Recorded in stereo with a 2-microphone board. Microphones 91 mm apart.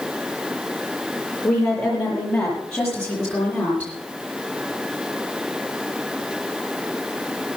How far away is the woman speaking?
About 7 m.